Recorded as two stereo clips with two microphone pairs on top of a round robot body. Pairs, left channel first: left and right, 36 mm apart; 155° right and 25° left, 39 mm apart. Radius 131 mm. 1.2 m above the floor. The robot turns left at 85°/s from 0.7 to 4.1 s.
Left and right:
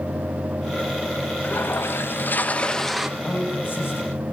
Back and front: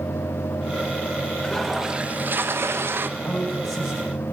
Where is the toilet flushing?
135° left, 1.7 m; by 3.1 s 5° right, 1.7 m.